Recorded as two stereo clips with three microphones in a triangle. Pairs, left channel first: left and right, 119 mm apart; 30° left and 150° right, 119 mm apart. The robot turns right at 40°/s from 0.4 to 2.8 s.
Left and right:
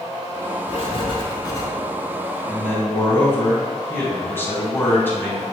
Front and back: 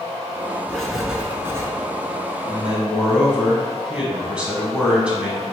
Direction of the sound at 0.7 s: 110° left.